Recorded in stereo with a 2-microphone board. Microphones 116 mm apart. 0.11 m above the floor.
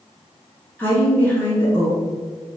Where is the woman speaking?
15° left (ahead or behind), 1.3 m.